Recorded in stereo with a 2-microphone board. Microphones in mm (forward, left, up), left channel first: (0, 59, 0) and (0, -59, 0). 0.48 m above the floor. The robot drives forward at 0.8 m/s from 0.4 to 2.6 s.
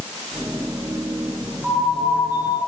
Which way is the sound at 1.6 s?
10° right (ahead or behind).